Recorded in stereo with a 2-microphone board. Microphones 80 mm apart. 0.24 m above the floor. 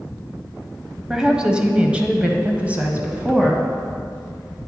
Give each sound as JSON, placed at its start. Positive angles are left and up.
{"t": 1.1, "sound": "a woman speaking", "side_deg": -10, "distance_m": 1.0}